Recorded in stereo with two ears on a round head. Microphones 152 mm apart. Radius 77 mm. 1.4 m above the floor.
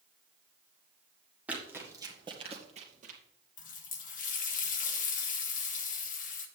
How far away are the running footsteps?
About 2 m.